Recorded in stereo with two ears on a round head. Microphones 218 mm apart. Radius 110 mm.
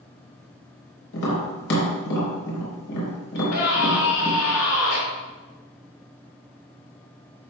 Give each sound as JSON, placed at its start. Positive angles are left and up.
{"t": 1.1, "sound": "tapping", "side_deg": 55, "distance_m": 4.0}
{"t": 3.4, "sound": "a scream", "side_deg": 70, "distance_m": 4.0}